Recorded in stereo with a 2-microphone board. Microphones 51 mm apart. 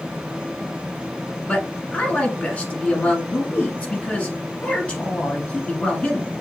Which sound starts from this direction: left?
A man speaking, at 1.5 s.